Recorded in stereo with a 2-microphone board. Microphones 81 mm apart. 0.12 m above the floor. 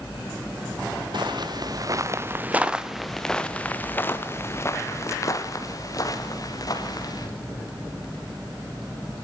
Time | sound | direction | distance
1.1 | footsteps | 65° right (ahead or behind) | 1.7 m